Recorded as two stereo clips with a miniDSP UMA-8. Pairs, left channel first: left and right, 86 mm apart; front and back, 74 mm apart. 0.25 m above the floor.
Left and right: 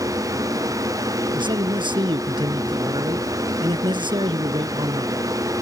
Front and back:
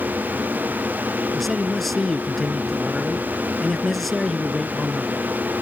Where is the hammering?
No hammering in this recording.